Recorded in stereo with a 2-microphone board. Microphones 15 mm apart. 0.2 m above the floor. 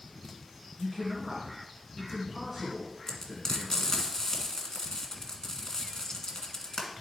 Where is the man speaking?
30° right (ahead or behind), 2 m.